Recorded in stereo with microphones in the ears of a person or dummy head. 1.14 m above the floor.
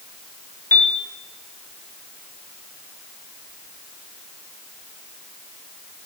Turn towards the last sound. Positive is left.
turn(degrees=15)  # may be behind; listen again after turning